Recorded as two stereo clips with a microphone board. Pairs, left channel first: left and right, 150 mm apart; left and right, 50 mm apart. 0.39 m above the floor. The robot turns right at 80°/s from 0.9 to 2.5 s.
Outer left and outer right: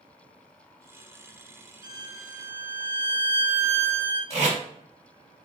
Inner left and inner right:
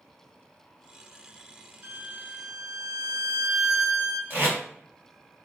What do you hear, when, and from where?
1.8 s a violin: 70° right, 0.6 m; by 4.2 s 15° right, 0.6 m
4.3 s tape being pulled: 45° right (ahead or behind), 1.9 m